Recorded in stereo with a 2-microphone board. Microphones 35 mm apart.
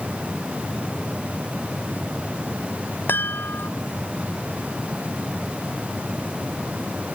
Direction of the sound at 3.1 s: 85° left.